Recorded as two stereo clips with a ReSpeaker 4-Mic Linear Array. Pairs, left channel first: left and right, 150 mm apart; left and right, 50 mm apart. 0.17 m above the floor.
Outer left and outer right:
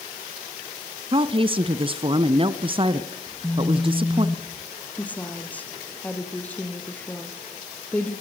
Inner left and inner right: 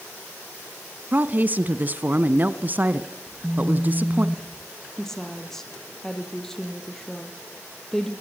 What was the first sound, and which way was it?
A woman speaking, 35° right (ahead or behind).